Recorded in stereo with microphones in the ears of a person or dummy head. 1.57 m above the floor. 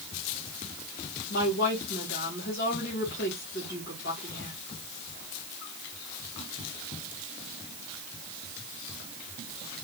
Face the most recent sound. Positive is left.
turn(degrees=60)  # may be behind; listen again after turning